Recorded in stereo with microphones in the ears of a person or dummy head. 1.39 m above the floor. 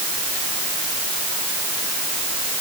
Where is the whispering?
No whispering in this recording.